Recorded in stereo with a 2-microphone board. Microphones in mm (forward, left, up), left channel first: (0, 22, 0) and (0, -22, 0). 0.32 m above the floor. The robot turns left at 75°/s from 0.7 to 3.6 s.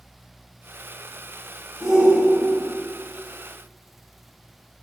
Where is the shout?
Straight ahead, 2 m; by 2.7 s 65° right, 2 m.